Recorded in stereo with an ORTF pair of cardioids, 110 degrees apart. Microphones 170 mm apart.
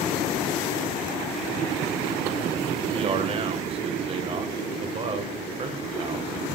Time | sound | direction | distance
2.8 | a man speaking | 30° right | 1.6 m